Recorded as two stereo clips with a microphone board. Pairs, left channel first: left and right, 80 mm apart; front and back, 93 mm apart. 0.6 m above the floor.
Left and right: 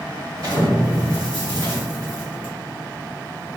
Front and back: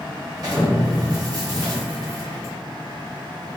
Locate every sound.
0.4 s an explosion: 130° right, 1.5 m